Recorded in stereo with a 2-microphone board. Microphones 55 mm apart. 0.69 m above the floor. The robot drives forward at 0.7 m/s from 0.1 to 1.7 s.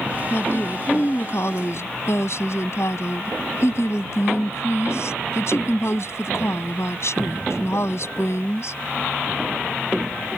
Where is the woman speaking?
50° left (ahead or behind); by 8.8 s 60° left (ahead or behind).